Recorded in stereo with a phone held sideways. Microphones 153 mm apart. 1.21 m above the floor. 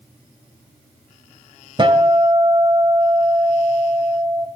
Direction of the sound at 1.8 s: 35° right (ahead or behind).